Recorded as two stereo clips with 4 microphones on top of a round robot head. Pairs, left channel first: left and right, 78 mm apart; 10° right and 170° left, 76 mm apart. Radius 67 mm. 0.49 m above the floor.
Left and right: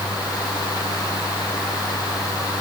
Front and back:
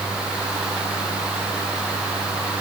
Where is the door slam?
I don't hear a door slam.